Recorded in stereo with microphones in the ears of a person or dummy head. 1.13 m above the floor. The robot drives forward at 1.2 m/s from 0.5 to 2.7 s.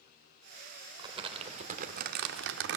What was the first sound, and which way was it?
Crumpling, 30° right (ahead or behind).